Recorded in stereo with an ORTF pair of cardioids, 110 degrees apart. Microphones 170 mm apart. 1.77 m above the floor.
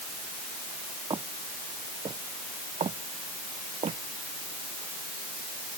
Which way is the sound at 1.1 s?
25° right.